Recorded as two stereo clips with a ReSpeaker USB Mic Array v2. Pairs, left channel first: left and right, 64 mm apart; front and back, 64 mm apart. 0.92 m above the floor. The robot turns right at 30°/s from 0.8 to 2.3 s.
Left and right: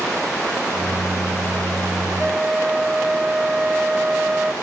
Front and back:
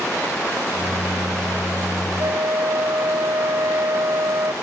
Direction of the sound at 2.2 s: 170° right.